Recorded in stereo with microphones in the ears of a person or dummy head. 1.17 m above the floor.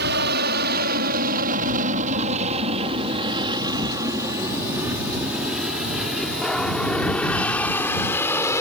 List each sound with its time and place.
0.0 s an aircraft: 60° right (ahead or behind); by 8.6 s 15° left (ahead or behind)